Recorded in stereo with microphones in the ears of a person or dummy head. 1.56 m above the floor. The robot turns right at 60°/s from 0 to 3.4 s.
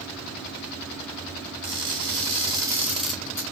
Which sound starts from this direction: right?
Crushing, at 1.6 s.